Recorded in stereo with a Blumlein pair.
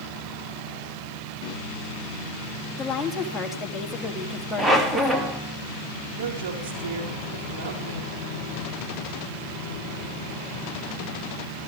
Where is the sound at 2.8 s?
10° left, 3 m.